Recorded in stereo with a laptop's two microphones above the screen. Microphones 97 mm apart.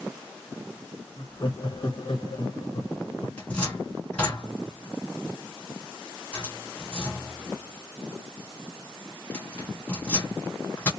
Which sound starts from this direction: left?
Laughter, at 1.2 s.